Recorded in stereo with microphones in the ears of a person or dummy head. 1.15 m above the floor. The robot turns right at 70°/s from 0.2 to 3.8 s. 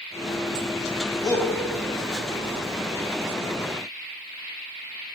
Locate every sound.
1.2 s a shout: 25° left (ahead or behind), 0.9 m; by 1.5 s 5° left (ahead or behind), 0.9 m